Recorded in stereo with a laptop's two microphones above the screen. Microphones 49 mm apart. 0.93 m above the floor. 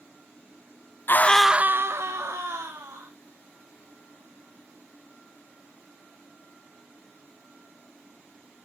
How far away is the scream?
About 0.7 m.